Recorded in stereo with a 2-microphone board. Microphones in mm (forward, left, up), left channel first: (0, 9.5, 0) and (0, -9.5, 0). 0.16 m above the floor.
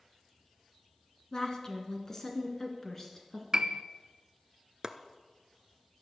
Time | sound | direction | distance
1.3 | a woman speaking | 35° left (ahead or behind) | 1.9 m
3.5 | a piano | 35° right (ahead or behind) | 0.7 m
4.8 | chopping | 25° right (ahead or behind) | 0.9 m